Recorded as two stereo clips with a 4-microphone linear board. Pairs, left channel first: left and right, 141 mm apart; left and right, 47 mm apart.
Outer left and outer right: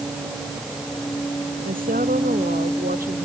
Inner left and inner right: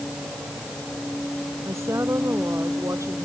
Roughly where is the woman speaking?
Right.